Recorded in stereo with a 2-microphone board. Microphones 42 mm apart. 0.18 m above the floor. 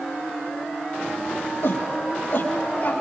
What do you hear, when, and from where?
1.6 s a shout: 50° left (ahead or behind), 5.5 m; by 2.9 s 35° left (ahead or behind), 6 m